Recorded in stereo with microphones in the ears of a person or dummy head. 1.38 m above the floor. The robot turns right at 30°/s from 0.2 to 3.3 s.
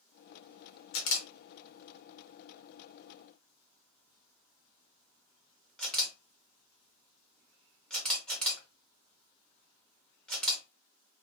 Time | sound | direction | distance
0.9 | a camera shutter | 70° left (ahead or behind) | 0.8 m